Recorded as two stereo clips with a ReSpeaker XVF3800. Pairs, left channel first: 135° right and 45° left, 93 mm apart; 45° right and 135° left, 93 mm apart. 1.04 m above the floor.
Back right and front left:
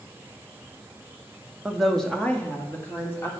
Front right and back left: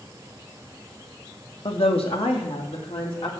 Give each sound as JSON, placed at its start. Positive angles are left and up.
{"t": 1.6, "sound": "a woman speaking", "azimuth_deg": -40, "distance_m": 1.3}